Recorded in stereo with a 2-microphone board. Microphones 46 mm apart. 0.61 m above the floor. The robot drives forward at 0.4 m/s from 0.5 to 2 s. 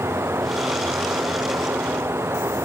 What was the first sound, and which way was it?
Running water, 75° right (ahead or behind).